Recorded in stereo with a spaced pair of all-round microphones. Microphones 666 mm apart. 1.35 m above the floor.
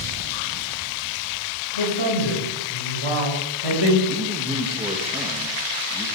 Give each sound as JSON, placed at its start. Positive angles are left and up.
{"t": 1.8, "sound": "a man speaking", "side_deg": 40, "distance_m": 5.5}
{"t": 4.1, "sound": "a man speaking", "side_deg": -10, "distance_m": 1.4}